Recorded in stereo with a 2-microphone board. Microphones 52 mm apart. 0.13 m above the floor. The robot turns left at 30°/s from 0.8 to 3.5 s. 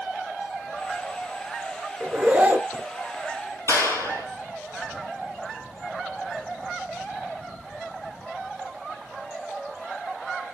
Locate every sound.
2.0 s a zipper: 20° right (ahead or behind), 0.7 m; by 2.9 s 40° right (ahead or behind), 0.7 m
3.7 s a clap: 70° left (ahead or behind), 2.5 m